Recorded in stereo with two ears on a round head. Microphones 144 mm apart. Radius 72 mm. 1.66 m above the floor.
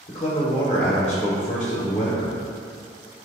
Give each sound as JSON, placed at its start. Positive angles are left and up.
{"t": 0.1, "sound": "a man speaking", "side_deg": 35, "distance_m": 0.9}